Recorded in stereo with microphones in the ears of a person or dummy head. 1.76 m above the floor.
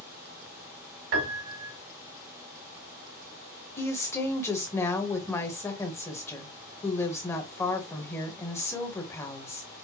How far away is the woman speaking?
About 1.3 m.